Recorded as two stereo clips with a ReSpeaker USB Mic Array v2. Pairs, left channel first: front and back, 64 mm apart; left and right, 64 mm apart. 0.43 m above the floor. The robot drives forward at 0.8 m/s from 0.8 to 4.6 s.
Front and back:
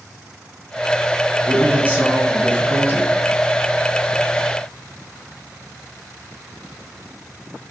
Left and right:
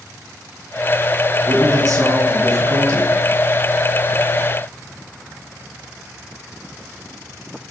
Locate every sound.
1.5 s a man speaking: 110° right, 4 m; by 3.1 s 125° right, 5 m